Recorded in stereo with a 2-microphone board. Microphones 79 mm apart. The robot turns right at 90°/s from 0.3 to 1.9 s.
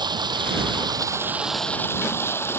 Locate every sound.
0.0 s running water: 115° right; by 2.6 s 30° left